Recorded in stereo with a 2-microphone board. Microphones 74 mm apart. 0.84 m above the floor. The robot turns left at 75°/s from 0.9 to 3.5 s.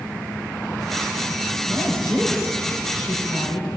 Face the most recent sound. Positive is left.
turn(degrees=100)